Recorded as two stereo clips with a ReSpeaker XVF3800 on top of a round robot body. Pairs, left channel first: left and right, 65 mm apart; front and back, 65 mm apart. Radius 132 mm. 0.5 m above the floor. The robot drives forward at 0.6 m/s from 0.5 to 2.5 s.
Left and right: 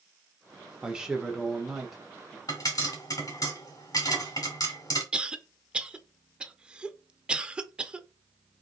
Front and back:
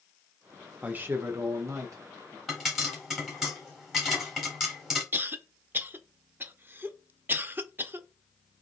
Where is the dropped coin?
I don't hear a dropped coin.